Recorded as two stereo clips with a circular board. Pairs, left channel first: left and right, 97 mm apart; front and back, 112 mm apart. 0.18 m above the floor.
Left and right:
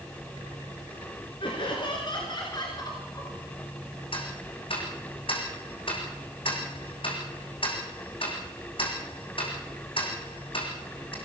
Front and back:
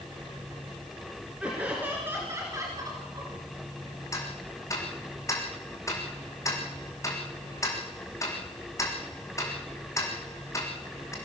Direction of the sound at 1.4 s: 100° left.